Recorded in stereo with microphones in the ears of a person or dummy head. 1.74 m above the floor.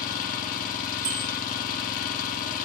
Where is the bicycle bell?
75° right (ahead or behind), 4.5 m.